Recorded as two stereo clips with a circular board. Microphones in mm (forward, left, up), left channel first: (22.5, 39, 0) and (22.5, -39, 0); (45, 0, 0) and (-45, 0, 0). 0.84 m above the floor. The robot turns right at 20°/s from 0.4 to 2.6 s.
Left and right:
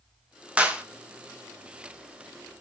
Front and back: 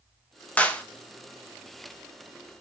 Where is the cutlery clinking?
I don't hear cutlery clinking.